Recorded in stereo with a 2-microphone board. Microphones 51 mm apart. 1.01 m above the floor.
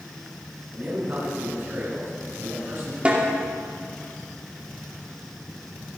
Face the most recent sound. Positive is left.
turn(degrees=-25)  # may be behind; listen again after turning